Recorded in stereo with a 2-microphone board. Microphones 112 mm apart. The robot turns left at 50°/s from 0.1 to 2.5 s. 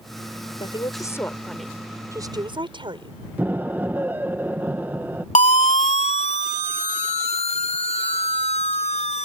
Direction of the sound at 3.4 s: 15° right (ahead or behind).